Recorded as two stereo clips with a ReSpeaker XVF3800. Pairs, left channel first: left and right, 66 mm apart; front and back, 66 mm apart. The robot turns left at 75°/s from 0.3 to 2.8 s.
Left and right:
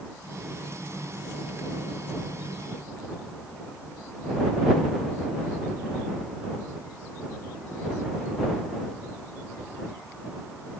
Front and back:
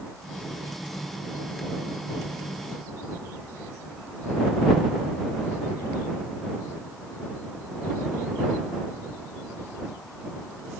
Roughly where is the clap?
No clap in this recording.